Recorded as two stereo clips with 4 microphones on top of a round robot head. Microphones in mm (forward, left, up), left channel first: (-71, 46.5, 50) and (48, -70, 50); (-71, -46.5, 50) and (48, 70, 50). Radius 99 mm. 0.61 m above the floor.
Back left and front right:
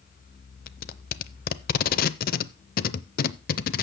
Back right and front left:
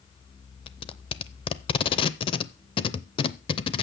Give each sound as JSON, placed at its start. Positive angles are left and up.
{"t": 0.7, "sound": "tape being pulled", "azimuth_deg": 165, "distance_m": 0.5}